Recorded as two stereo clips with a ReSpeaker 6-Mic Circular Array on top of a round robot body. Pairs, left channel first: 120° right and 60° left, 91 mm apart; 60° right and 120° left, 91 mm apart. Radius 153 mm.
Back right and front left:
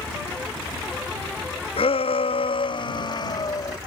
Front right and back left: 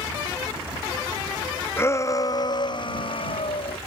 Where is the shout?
125° right; by 3.8 s 70° right.